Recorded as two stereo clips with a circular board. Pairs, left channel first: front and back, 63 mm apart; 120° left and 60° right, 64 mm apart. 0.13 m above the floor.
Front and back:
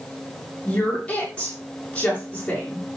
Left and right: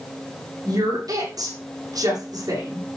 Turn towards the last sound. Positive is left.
turn(degrees=-70)